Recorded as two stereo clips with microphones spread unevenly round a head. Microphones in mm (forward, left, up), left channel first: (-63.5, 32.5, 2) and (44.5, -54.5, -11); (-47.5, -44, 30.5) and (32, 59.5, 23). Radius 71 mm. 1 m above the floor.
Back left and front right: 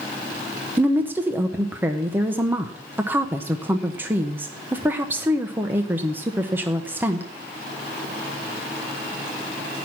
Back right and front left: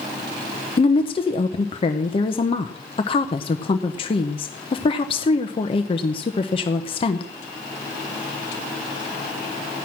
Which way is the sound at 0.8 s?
105° right.